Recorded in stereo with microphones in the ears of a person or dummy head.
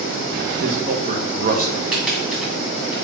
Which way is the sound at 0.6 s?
45° right (ahead or behind).